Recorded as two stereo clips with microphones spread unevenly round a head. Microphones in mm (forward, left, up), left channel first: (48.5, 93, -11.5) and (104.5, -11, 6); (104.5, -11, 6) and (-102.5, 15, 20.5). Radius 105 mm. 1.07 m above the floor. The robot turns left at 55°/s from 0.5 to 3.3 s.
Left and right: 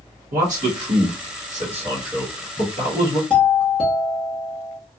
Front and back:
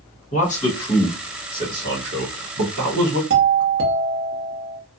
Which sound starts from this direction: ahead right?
A man speaking, at 0.3 s.